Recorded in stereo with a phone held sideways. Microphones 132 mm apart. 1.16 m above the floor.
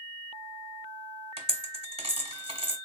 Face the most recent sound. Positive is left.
turn(degrees=-45)  # may be behind; listen again after turning